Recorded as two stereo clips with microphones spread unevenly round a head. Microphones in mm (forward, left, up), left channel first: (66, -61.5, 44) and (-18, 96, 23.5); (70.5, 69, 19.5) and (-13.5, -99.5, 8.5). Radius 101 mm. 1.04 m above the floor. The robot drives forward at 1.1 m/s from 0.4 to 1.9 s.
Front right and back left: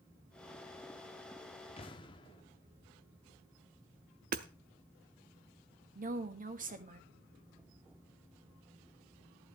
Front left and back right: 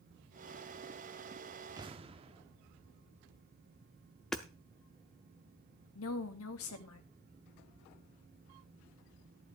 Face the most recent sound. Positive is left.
turn(degrees=75)